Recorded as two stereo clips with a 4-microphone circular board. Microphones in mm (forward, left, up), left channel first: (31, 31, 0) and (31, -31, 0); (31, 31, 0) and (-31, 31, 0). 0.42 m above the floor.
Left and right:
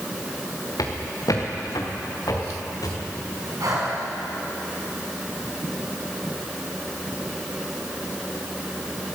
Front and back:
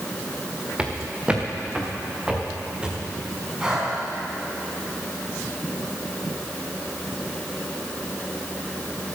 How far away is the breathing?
About 4.5 m.